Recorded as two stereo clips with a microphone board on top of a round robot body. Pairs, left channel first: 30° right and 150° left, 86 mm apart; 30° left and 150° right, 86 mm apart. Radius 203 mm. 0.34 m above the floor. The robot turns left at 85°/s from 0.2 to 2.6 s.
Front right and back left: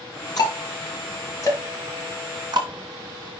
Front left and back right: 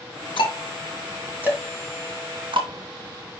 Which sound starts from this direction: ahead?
Ticking, at 0.4 s.